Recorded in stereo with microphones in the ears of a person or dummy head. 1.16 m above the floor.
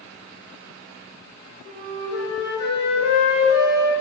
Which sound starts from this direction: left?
A flute, at 1.6 s.